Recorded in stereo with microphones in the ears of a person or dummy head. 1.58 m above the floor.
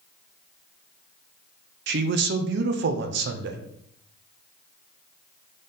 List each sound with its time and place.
1.9 s a man speaking: 60° right (ahead or behind), 0.6 m